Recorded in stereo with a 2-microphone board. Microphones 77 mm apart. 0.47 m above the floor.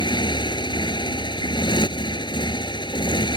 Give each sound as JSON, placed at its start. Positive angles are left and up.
{"t": 0.0, "sound": "a motorcycle", "side_deg": 80}